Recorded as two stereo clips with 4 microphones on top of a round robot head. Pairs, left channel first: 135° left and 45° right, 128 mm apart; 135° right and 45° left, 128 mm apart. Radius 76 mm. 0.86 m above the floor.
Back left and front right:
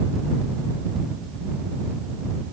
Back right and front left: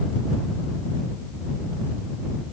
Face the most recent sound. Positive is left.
No sound to turn to.